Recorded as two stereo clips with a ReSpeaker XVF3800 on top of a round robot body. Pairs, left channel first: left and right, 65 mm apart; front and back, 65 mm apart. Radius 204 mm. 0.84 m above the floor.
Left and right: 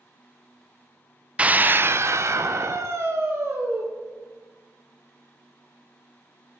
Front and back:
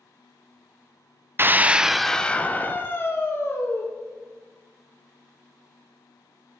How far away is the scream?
About 0.7 m.